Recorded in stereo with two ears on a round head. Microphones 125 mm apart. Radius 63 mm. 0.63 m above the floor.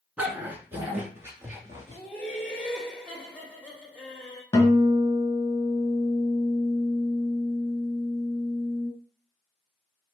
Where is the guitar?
20° left (ahead or behind), 2.5 m.